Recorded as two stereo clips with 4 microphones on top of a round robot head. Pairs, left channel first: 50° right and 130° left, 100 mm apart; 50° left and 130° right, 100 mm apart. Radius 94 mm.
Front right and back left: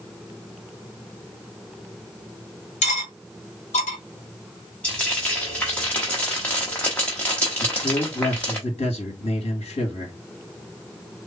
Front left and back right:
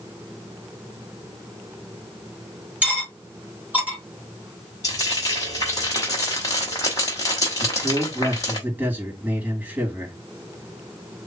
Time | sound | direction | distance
2.8 | cutlery clinking | 50° right | 1.1 m
4.8 | frying | 15° left | 0.6 m
7.6 | a man speaking | 55° right | 2 m